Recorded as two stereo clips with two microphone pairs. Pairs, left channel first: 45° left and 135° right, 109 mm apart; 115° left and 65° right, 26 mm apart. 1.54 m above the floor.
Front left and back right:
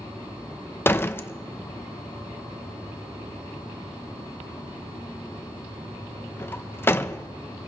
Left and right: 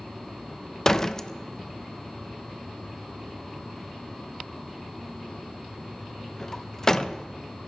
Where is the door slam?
65° left, 0.7 m.